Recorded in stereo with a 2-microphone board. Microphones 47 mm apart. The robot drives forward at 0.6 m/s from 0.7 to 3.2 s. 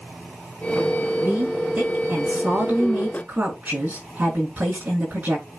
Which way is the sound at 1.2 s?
35° right (ahead or behind).